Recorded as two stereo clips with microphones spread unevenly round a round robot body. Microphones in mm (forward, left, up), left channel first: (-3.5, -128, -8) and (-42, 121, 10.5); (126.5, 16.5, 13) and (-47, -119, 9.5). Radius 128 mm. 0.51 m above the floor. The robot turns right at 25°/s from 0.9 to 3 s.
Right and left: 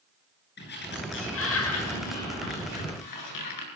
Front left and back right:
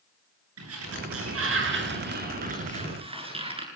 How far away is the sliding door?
About 9 m.